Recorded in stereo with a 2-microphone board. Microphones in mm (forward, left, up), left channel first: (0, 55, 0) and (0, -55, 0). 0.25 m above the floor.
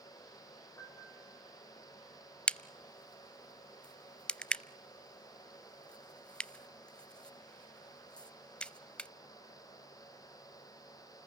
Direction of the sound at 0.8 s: 25° left (ahead or behind).